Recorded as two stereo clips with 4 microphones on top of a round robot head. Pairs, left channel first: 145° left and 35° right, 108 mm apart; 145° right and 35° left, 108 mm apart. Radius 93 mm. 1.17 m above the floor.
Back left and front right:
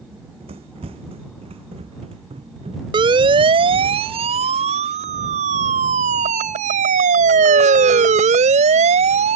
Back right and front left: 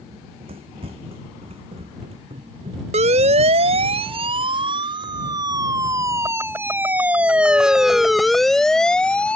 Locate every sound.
0.1 s running footsteps: straight ahead
2.9 s a siren: 10° left; by 9.4 s 60° right